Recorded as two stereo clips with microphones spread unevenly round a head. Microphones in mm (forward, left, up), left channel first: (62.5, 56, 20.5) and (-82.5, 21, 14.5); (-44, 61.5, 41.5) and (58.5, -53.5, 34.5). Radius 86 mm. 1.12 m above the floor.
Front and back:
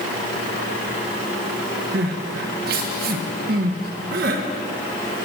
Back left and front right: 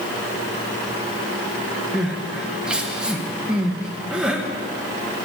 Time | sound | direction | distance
1.9 | crying | 135° right | 0.8 m